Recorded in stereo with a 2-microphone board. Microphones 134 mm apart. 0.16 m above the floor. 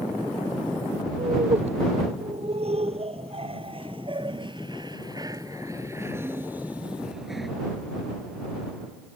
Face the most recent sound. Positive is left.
turn(degrees=0)  # may be behind; listen again after turning